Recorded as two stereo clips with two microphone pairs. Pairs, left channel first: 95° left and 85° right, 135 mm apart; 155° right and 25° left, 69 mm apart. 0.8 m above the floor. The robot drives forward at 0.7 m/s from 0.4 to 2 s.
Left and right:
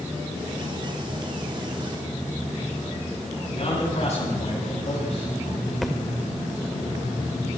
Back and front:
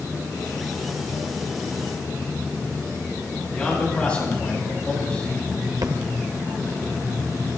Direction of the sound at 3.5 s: 130° left.